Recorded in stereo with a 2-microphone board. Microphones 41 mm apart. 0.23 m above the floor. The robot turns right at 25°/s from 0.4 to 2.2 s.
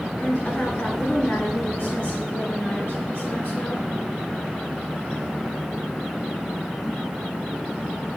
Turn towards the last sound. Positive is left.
turn(degrees=80)